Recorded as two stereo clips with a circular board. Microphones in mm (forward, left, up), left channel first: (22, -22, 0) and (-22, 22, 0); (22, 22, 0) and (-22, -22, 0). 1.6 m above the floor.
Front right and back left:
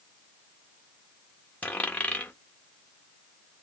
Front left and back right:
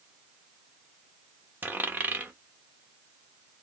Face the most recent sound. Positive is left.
turn(degrees=-95)